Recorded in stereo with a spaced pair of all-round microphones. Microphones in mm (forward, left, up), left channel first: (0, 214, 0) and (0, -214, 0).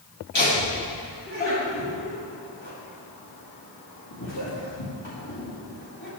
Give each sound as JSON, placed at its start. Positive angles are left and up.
{"t": 0.3, "sound": "laughter", "side_deg": 85, "distance_m": 2.0}